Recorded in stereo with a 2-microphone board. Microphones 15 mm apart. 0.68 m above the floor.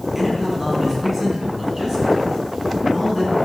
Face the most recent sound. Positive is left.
turn(degrees=-40)  # may be behind; listen again after turning